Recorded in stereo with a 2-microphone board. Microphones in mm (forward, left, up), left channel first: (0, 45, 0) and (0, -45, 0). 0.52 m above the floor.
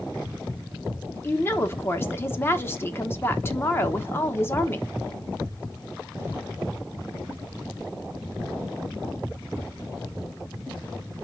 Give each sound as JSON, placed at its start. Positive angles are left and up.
{"t": 1.2, "sound": "a woman speaking", "side_deg": 25, "distance_m": 0.9}